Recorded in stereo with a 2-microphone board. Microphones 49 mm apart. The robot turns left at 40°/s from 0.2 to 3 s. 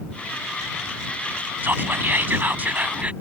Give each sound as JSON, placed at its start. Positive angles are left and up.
{"t": 1.6, "sound": "whispering", "azimuth_deg": -80}